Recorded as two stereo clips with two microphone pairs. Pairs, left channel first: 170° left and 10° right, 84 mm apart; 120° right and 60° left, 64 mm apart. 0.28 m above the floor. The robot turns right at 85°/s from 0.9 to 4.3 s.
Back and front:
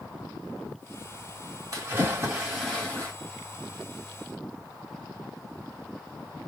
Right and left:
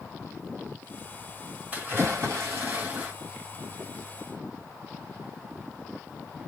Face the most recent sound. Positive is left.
turn(degrees=-140)